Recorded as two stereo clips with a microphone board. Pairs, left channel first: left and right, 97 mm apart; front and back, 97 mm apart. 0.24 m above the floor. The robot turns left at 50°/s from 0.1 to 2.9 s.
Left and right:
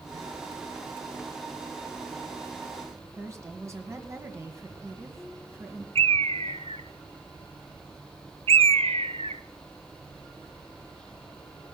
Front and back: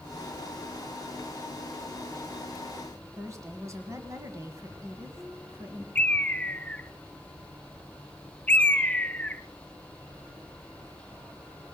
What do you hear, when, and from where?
3.2 s a woman speaking: 135° right, 2.0 m
6.0 s a bird: 75° right, 0.7 m